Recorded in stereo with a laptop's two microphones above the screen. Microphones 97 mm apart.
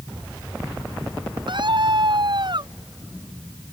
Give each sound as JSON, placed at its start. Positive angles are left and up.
{"t": 1.5, "sound": "a scream", "side_deg": -60}